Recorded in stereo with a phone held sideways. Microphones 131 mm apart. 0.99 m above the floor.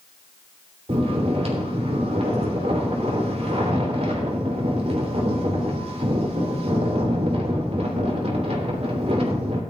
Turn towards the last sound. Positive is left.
turn(degrees=-55)  # may be behind; listen again after turning